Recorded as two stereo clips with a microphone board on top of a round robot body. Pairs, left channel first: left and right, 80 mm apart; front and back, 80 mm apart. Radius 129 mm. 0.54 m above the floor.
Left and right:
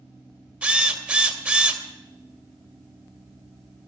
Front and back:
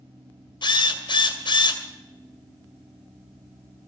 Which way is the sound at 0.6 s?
15° right.